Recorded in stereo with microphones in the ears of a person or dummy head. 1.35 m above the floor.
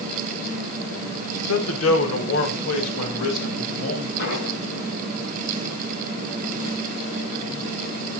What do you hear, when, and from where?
1.5 s a man speaking: 80° left, 1.8 m; by 4.1 s 85° left, 3.5 m
4.2 s an explosion: 75° left (ahead or behind), 8 m